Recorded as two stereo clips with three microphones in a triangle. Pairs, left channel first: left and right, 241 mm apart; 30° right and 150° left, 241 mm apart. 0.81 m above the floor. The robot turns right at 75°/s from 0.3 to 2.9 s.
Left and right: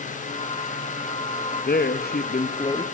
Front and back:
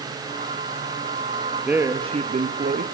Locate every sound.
1.7 s a man speaking: 65° left, 1.2 m; by 2.9 s 155° left, 1.2 m